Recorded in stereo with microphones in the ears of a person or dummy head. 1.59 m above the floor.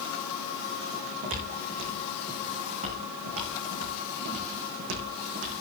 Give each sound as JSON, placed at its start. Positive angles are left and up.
{"t": 0.9, "sound": "footsteps", "side_deg": -40, "distance_m": 6.5}